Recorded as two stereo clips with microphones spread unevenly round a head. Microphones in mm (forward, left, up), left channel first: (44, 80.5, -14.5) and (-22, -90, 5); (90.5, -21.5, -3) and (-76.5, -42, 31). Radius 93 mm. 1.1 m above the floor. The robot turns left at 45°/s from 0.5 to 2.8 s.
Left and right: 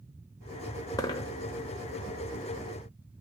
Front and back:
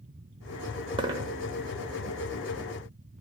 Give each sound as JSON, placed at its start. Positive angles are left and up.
{"t": 1.0, "sound": "a dropped coin", "azimuth_deg": 140, "distance_m": 1.1}